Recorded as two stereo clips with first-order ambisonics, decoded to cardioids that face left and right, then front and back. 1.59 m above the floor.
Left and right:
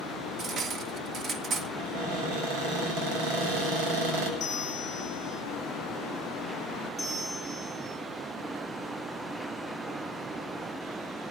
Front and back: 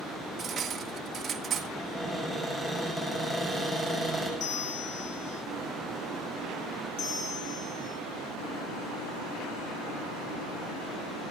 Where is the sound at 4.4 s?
35° left, 1.4 m.